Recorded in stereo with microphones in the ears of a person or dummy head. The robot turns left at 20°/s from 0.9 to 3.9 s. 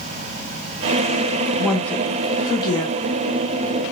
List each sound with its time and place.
1.6 s a woman speaking: 5° left (ahead or behind), 0.7 m; by 3.0 s 30° left (ahead or behind), 0.7 m